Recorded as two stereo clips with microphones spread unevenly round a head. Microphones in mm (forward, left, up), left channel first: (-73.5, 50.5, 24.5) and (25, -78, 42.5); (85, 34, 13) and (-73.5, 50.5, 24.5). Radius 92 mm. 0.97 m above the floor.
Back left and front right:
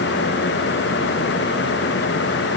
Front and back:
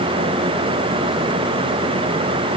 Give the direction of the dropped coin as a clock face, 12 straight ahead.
No dropped coin in this recording.